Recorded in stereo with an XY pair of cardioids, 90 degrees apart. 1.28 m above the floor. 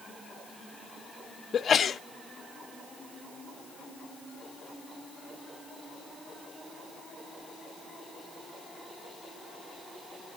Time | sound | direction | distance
1.5 | a sneeze | 50° left | 0.9 m